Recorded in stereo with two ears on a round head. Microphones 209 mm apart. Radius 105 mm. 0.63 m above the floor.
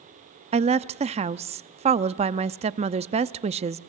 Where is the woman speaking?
25° right (ahead or behind), 0.7 m.